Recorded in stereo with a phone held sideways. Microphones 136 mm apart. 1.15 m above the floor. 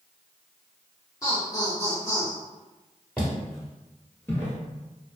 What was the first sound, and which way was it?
Laughter, 25° left (ahead or behind).